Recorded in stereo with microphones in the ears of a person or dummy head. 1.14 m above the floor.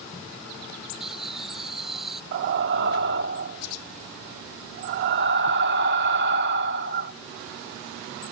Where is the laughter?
Centre (ahead or behind).